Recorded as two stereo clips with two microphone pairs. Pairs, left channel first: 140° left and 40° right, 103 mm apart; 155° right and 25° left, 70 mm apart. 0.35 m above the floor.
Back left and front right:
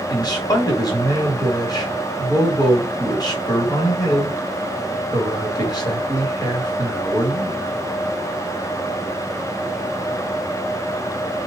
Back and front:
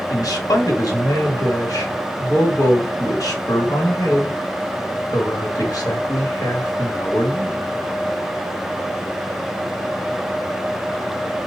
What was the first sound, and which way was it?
A man speaking, 170° right.